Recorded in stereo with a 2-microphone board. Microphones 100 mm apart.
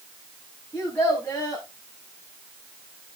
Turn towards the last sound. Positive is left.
turn(degrees=20)  # may be behind; listen again after turning